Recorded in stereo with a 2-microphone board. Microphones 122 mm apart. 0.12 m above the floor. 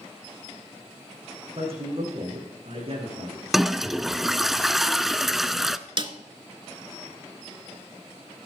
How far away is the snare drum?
About 0.7 m.